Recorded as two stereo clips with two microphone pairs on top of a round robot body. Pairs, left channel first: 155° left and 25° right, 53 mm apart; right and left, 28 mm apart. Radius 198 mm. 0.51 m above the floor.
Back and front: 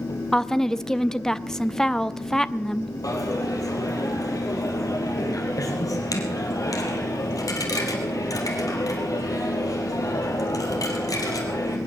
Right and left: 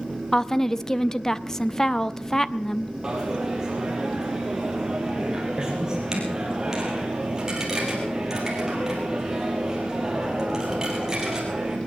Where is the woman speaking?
140° right, 0.8 m.